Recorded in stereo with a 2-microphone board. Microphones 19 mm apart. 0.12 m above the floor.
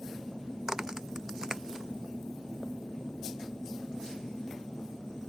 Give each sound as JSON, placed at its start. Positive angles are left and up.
{"t": 0.7, "sound": "a crack", "side_deg": -35}